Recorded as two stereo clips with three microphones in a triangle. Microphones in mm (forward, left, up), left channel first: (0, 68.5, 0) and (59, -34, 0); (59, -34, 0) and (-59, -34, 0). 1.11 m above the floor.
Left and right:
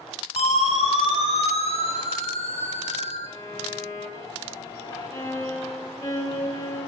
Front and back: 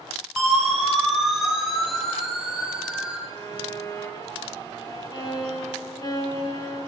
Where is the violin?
55° left, 4.5 m.